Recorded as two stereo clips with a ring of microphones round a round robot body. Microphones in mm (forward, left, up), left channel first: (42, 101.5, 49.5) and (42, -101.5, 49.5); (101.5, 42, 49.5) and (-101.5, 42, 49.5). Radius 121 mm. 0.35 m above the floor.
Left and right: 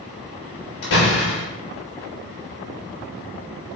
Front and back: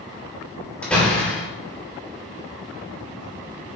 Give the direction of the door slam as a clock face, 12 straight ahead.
9 o'clock.